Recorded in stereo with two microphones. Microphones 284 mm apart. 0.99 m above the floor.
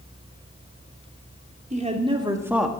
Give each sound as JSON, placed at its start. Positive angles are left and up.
{"t": 1.7, "sound": "a woman speaking", "side_deg": -25, "distance_m": 3.0}